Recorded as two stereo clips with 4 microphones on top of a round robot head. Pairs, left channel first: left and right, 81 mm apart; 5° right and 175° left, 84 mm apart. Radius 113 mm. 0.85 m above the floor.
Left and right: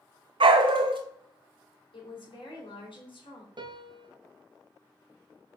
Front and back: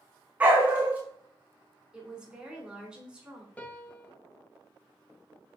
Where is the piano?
75° right, 1.2 m.